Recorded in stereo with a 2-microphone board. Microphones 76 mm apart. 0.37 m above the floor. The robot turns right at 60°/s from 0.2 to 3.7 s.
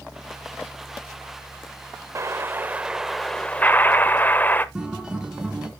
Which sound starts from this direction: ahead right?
An explosion, at 2.1 s.